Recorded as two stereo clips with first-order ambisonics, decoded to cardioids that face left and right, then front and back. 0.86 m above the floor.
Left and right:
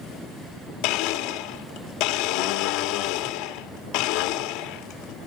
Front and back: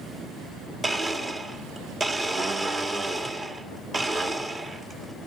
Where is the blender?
105° left, 1.7 m.